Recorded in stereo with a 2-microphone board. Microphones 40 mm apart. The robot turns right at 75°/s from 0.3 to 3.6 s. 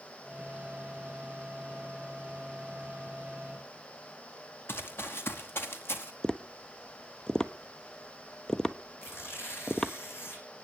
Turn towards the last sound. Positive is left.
turn(degrees=80)